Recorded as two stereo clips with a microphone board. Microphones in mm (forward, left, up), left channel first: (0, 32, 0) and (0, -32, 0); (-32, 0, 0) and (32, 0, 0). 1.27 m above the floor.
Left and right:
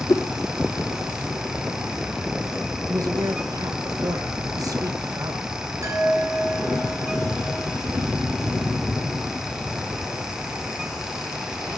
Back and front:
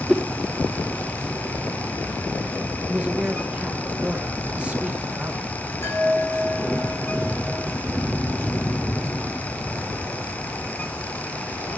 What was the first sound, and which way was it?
A whoosh, 95° left.